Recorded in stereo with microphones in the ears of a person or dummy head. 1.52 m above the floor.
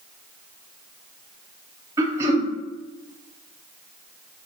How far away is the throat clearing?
About 0.6 m.